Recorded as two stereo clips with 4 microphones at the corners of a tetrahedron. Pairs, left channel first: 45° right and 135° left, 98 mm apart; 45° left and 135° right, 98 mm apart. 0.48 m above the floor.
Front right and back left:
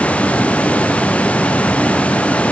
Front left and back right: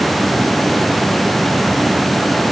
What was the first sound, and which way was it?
Only background noise.